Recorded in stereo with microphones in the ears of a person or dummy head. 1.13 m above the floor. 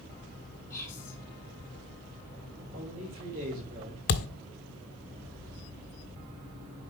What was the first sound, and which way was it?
Whispering, 15° left (ahead or behind).